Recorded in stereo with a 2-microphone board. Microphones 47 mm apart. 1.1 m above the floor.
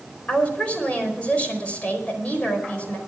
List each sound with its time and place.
0.3 s a woman speaking: 30° left (ahead or behind), 4 m